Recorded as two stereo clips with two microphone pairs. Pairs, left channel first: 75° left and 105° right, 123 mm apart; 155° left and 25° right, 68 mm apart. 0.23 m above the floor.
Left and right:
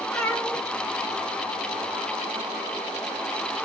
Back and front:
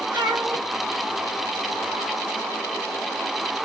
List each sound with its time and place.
0.1 s a cat meowing: straight ahead, 3.5 m